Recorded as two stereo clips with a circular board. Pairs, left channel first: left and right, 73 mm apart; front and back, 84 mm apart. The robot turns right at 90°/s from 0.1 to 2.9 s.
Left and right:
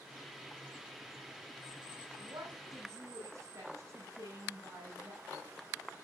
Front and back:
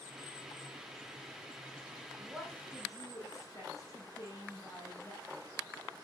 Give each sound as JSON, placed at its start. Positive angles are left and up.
{"t": 2.2, "sound": "a woman speaking", "azimuth_deg": -110, "distance_m": 7.5}